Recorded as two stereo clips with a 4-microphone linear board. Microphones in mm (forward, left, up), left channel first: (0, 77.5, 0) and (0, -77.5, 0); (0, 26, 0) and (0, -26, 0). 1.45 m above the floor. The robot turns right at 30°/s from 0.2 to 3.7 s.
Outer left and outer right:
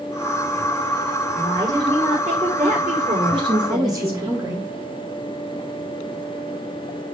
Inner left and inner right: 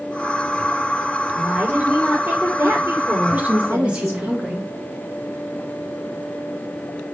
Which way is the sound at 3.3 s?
35° right (ahead or behind).